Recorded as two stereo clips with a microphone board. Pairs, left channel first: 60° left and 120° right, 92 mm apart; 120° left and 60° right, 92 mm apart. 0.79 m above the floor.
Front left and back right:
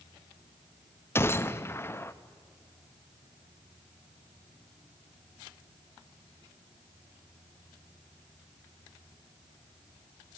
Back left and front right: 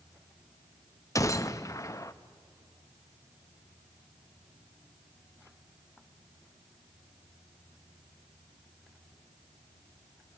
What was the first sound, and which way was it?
A gunshot, 100° left.